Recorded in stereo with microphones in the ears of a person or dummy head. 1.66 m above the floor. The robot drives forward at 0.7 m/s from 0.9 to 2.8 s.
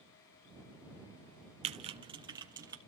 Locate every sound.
1.6 s typing on a keyboard: 35° right (ahead or behind), 0.7 m; by 2.8 s 15° right (ahead or behind), 1.4 m